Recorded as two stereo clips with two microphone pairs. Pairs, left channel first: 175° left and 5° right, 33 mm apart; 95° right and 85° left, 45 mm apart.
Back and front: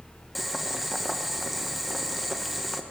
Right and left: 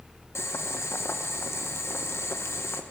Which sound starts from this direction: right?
Boiling, at 0.3 s.